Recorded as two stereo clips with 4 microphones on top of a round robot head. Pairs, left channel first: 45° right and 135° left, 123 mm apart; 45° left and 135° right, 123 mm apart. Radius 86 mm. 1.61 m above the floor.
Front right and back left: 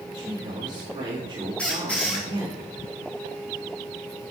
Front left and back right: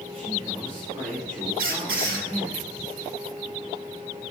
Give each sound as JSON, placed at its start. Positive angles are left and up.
{"t": 0.1, "sound": "a man speaking", "azimuth_deg": 175, "distance_m": 3.0}
{"t": 1.6, "sound": "a squeak", "azimuth_deg": -125, "distance_m": 2.5}